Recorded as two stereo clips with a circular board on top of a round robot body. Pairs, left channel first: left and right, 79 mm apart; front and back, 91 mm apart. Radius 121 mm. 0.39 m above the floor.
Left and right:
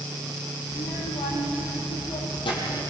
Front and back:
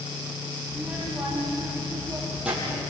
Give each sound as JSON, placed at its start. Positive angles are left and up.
{"t": 0.7, "sound": "a child speaking", "azimuth_deg": 105, "distance_m": 9.5}